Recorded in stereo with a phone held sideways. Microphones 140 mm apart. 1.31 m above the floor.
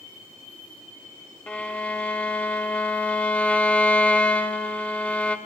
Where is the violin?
10° left (ahead or behind), 1.1 m.